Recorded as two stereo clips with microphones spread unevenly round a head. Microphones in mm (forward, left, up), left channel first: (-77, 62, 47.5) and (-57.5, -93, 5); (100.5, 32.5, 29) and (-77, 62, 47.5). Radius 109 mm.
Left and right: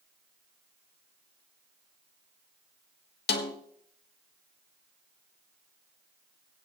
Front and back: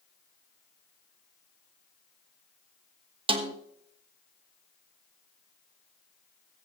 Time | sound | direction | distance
3.3 | a snare drum | 110° left | 1.4 m